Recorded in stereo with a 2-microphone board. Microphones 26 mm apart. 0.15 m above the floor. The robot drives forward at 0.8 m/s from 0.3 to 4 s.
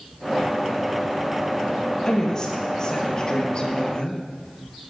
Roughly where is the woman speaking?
Left.